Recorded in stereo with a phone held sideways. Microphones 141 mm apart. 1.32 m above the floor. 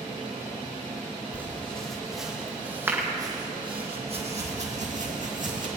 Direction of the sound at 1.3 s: 10° left (ahead or behind).